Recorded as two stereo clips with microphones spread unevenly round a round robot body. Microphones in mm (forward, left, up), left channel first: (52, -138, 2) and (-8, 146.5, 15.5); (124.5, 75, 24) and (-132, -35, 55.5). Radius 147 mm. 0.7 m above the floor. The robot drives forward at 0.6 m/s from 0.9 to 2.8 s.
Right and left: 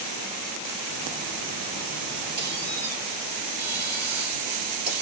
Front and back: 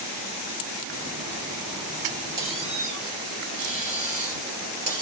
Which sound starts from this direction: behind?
A squeak, at 2.4 s.